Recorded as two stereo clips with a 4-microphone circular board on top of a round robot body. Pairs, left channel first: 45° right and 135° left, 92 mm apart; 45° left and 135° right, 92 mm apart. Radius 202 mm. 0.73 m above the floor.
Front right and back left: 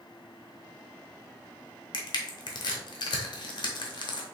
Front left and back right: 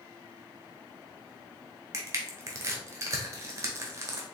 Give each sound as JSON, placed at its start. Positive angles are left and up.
{"t": 1.9, "sound": "crushing", "azimuth_deg": -75, "distance_m": 0.8}